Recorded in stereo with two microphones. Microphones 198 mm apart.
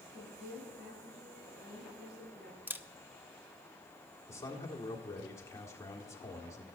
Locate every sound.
0.1 s a woman speaking: 55° right (ahead or behind), 7.5 m
2.7 s a camera shutter: 10° right (ahead or behind), 0.6 m
4.3 s a man speaking: 15° left (ahead or behind), 1.8 m